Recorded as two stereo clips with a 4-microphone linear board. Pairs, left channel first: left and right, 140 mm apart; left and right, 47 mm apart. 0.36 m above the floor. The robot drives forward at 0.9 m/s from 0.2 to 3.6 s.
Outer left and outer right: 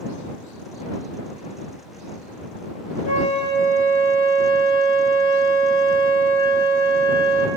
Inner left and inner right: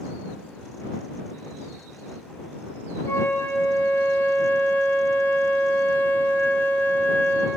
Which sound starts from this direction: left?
A flute, at 3.0 s.